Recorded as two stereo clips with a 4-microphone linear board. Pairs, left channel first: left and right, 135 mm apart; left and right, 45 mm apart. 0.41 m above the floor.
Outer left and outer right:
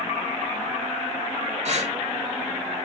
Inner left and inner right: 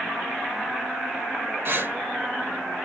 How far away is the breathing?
About 0.9 m.